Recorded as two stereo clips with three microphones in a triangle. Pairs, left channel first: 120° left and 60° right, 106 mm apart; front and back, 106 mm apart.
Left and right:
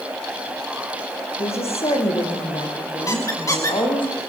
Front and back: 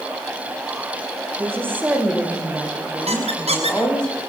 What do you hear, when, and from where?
1.4 s a woman speaking: 115° left, 6.5 m; by 4.1 s 80° left, 8 m
3.1 s a squeak: straight behind, 3.5 m